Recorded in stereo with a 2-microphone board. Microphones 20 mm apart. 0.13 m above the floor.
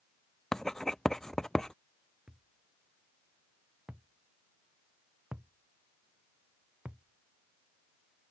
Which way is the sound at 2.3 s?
70° right (ahead or behind).